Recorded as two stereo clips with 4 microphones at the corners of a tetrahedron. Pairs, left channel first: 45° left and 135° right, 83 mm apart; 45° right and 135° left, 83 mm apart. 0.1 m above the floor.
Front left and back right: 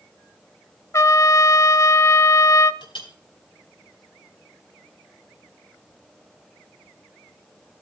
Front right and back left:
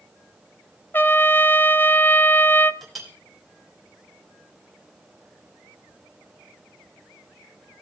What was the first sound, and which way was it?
A trumpet, 10° left.